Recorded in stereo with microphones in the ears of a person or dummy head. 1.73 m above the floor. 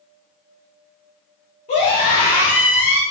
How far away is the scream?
About 1.6 m.